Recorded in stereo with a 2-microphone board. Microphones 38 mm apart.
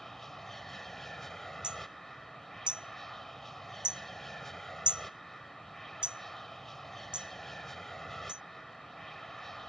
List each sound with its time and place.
0.0 s an aircraft: 10° left (ahead or behind)
1.6 s hammering: 25° right (ahead or behind)